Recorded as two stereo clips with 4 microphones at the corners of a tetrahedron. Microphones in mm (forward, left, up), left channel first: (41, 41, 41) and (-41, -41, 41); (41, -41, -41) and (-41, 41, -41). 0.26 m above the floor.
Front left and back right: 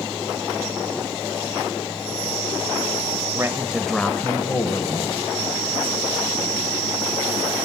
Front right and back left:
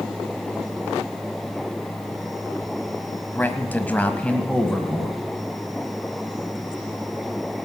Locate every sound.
3.3 s a man speaking: 105° right, 1.2 m; by 5.2 s 40° left, 1.7 m